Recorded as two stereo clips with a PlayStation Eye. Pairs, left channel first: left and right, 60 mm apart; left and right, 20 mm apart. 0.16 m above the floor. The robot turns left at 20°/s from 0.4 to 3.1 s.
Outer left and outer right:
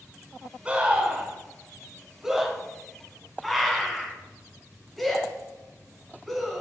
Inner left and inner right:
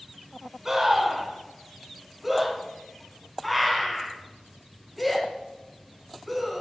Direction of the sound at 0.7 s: 20° right (ahead or behind).